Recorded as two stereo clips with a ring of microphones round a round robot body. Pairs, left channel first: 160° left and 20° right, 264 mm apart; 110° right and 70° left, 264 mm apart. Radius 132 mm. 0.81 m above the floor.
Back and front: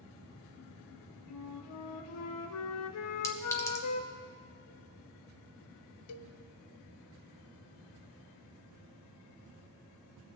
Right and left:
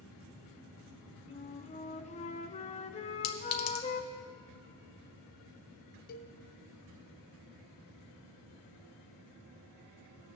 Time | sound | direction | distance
1.3 | a flute | 175° right | 0.6 m
3.2 | a clink | 120° right | 1.1 m
6.1 | a cowbell | 170° right | 0.5 m